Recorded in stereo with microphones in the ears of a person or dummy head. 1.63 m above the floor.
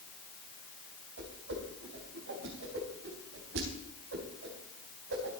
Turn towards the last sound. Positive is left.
turn(degrees=-65)  # may be behind; listen again after turning